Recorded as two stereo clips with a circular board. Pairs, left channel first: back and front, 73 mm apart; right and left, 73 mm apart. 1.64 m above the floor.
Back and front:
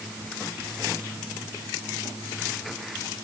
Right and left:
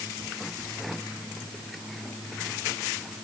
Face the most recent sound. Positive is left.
No sound to turn to.